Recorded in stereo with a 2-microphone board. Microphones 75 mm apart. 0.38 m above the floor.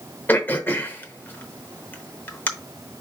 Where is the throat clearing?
25° left (ahead or behind), 0.8 m.